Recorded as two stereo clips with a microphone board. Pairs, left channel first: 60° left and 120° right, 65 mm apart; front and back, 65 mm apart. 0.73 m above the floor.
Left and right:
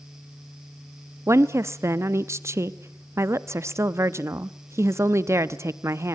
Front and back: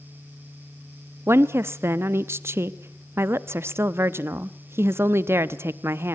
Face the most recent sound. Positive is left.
turn(degrees=-145)